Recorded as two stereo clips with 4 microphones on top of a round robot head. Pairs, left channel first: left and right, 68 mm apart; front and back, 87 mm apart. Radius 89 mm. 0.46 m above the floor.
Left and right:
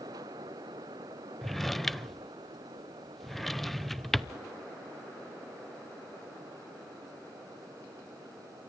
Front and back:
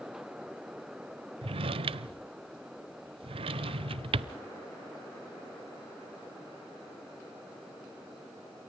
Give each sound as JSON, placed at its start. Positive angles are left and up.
{"t": 1.4, "sound": "a drawer", "azimuth_deg": 180, "distance_m": 0.7}